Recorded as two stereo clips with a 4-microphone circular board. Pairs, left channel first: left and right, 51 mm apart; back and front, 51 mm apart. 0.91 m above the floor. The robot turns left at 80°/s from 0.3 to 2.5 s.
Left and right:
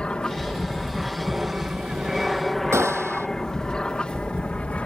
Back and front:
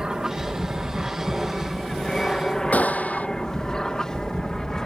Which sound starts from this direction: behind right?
A gunshot, at 2.7 s.